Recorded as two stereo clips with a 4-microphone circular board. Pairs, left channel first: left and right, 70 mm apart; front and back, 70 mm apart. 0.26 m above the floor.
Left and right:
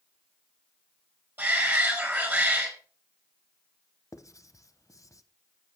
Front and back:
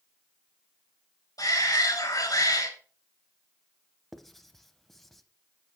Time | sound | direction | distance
1.4 | a shout | 30° right | 4 m
4.1 | writing | 85° left | 0.6 m